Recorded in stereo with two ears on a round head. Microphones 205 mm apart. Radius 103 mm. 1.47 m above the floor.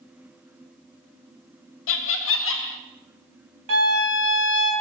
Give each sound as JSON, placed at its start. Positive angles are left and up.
{"t": 1.9, "sound": "laughter", "side_deg": 60, "distance_m": 0.6}
{"t": 3.7, "sound": "a violin", "side_deg": -60, "distance_m": 1.3}